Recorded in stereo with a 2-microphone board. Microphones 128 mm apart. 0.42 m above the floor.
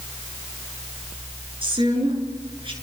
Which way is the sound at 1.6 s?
40° right (ahead or behind).